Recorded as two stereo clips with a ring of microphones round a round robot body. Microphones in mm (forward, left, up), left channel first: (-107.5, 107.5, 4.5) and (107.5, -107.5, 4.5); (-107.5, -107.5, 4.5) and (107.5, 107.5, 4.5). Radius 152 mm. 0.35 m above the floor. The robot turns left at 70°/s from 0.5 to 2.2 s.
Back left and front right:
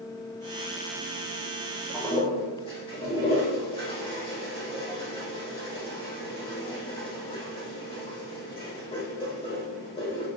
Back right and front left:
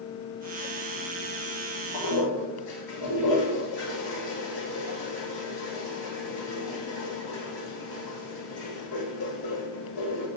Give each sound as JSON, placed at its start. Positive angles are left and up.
{"t": 1.9, "sound": "a toilet flushing", "azimuth_deg": -130, "distance_m": 4.5}